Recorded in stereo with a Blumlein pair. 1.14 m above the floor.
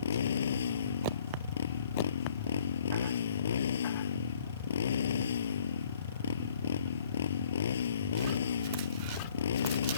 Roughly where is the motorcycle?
Ahead left.